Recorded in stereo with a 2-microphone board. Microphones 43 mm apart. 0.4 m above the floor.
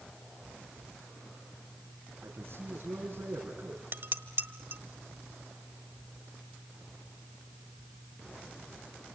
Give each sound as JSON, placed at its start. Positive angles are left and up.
{"t": 2.2, "sound": "a man speaking", "side_deg": -65, "distance_m": 4.5}
{"t": 3.9, "sound": "dishes clattering", "side_deg": -60, "distance_m": 1.2}